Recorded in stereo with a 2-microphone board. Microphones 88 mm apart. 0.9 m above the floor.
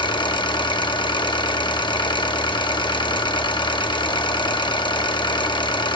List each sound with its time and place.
0.0 s an engine running: 60° left (ahead or behind), 0.8 m